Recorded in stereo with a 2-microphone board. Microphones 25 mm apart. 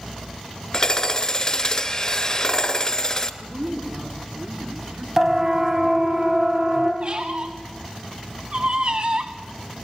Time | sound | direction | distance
0.7 | hammering | 35° left (ahead or behind) | 1.3 m
3.4 | a woman speaking | 70° right (ahead or behind) | 4 m
5.2 | a siren | 25° right (ahead or behind) | 2.5 m
7.0 | a squeak | 55° right (ahead or behind) | 1.8 m